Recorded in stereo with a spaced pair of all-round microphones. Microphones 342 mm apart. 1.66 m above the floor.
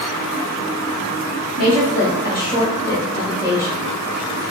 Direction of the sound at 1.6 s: 45° left (ahead or behind).